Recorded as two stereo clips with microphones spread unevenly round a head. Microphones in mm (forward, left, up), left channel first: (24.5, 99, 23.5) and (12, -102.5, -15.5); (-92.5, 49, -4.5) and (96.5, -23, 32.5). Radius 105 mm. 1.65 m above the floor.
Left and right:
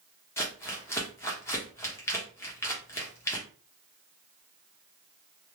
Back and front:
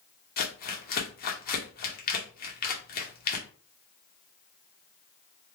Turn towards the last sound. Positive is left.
turn(degrees=135)